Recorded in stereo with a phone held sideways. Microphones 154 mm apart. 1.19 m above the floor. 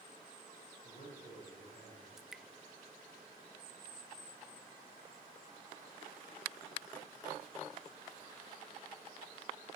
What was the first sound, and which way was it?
A man speaking, 70° left (ahead or behind).